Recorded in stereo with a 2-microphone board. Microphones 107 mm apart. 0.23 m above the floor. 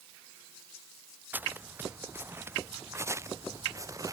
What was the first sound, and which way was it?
Footsteps, 15° right (ahead or behind).